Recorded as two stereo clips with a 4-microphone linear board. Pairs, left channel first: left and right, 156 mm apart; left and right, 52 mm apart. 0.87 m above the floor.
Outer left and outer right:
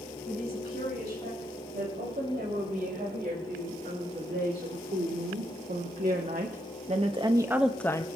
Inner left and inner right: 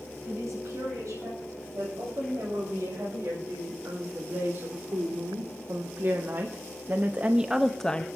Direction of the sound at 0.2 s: 80° right.